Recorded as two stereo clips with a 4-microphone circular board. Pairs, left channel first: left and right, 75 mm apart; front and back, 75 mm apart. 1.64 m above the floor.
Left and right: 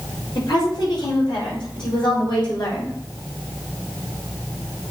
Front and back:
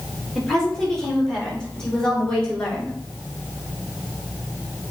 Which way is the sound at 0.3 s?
85° left.